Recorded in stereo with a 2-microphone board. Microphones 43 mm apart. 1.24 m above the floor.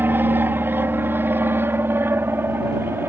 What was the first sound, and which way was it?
An aircraft, 55° right (ahead or behind).